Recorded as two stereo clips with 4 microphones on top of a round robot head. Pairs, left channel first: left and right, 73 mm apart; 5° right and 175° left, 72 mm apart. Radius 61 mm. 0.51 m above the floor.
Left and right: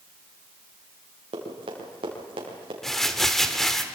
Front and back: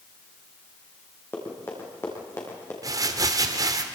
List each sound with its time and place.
1.3 s running footsteps: 75° right, 5.5 m; by 2.7 s 65° right, 6 m
2.8 s crumpling: 175° left, 1.7 m